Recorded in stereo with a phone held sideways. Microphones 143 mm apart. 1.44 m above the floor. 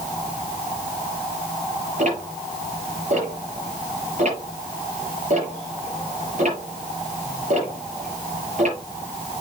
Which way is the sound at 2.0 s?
55° right (ahead or behind).